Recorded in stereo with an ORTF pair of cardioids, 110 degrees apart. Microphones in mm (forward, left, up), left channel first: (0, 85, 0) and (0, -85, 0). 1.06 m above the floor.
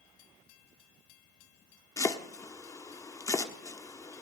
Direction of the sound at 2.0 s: 20° left.